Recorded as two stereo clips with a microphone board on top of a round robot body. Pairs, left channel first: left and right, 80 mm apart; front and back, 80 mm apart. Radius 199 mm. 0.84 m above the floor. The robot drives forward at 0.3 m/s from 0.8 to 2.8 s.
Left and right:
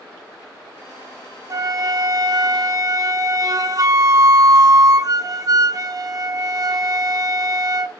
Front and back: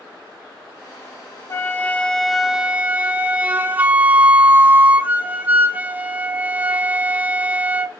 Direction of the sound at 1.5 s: 50° right.